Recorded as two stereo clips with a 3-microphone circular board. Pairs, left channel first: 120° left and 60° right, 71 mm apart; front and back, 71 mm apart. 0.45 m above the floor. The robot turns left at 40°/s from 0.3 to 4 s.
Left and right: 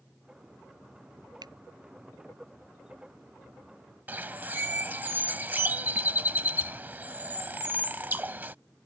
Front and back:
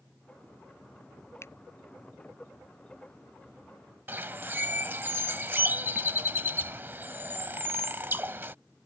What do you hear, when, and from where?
1.4 s a finger snap: 50° right; by 1.5 s 55° right
4.1 s a bird: 120° right